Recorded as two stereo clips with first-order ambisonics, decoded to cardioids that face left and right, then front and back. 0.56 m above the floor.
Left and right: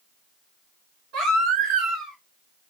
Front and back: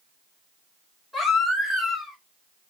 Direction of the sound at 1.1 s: 95° right.